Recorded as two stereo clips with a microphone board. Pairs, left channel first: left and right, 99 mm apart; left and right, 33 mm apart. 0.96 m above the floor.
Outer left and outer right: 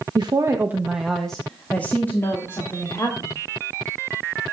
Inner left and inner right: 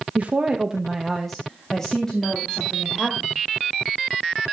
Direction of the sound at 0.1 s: 50° right (ahead or behind).